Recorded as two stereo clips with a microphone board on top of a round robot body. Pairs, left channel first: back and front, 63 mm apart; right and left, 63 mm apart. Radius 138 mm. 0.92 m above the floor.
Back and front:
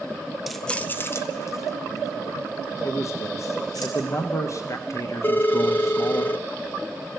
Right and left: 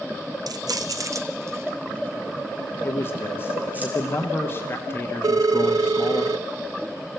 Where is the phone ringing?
115° left, 0.6 m.